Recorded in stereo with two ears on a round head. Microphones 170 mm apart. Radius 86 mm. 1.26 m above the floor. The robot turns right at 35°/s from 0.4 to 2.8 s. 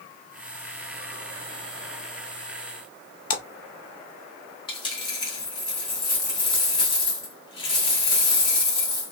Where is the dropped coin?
25° left (ahead or behind), 1.9 m.